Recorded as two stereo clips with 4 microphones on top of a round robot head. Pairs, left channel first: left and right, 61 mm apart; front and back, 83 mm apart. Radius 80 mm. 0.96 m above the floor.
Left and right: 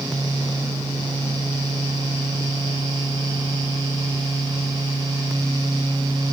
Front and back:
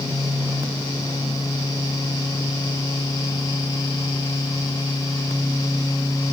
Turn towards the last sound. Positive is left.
No sound to turn to.